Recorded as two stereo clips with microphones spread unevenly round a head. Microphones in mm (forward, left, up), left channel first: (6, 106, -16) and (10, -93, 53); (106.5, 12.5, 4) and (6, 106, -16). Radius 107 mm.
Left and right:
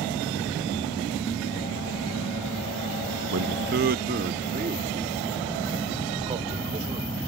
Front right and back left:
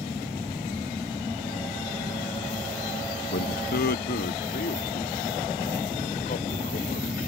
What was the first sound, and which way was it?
A man speaking, 65° right.